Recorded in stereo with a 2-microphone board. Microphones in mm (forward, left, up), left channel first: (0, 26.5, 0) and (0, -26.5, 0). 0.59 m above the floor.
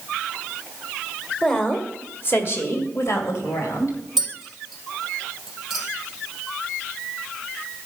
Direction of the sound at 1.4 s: 15° left (ahead or behind).